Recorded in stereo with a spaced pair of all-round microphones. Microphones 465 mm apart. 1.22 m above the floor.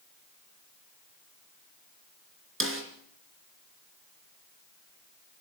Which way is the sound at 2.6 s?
25° right (ahead or behind).